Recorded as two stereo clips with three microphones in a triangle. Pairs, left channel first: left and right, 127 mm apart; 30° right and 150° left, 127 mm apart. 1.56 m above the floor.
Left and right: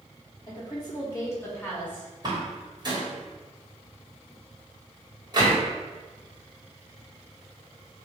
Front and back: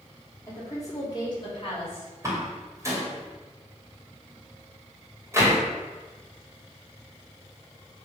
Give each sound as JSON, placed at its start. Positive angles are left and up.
{"t": 0.5, "sound": "a woman speaking", "azimuth_deg": 35, "distance_m": 3.0}
{"t": 2.2, "sound": "a door slam", "azimuth_deg": -145, "distance_m": 2.0}